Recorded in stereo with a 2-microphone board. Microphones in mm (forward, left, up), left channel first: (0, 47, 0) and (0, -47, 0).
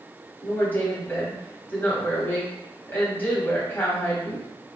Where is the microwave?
I don't hear a microwave.